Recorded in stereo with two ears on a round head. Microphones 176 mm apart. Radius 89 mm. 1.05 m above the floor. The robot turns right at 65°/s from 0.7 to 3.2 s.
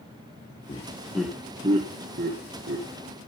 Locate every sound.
0.7 s laughter: 25° left (ahead or behind), 1.2 m; by 3.2 s 40° right (ahead or behind), 1.2 m